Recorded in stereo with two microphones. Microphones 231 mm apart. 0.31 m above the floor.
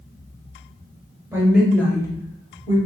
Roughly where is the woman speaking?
Centre.